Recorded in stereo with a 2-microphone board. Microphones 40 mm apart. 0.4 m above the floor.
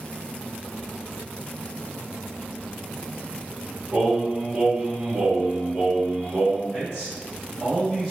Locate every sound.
3.9 s singing: 35° right (ahead or behind), 1.6 m
6.7 s a man speaking: 15° right (ahead or behind), 1.2 m